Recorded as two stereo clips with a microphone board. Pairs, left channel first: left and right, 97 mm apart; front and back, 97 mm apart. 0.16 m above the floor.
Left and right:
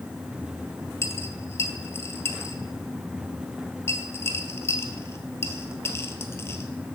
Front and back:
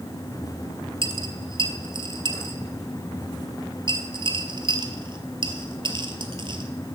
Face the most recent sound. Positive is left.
turn(degrees=150)